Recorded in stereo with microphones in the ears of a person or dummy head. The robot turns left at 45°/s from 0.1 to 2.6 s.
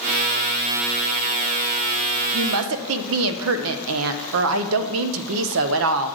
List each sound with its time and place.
2.3 s a woman speaking: 60° right (ahead or behind), 0.6 m; by 6.2 s 70° right (ahead or behind), 0.6 m